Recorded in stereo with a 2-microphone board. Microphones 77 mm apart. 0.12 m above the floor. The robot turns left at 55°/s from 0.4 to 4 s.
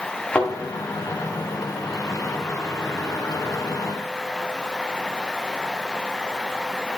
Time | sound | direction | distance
0.3 | a thud | 10° left (ahead or behind) | 3 m